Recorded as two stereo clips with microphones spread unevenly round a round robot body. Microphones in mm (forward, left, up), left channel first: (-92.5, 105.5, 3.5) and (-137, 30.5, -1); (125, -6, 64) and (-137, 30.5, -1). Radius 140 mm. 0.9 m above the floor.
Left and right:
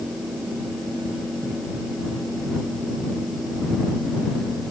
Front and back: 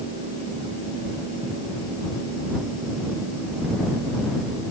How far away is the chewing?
No chewing in this recording.